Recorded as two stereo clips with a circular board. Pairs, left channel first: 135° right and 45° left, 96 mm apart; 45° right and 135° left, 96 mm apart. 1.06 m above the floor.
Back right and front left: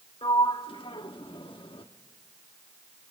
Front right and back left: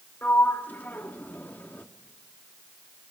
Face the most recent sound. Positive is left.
turn(degrees=-115)